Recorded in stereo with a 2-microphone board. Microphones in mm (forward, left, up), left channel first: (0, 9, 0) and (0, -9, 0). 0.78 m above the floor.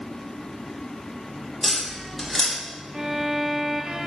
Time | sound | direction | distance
1.6 | tapping | 20° left (ahead or behind) | 4.5 m
2.9 | a violin | 40° right (ahead or behind) | 2.5 m